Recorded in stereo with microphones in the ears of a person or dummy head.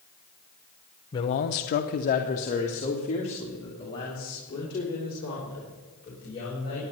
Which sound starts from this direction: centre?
A man speaking, at 1.1 s.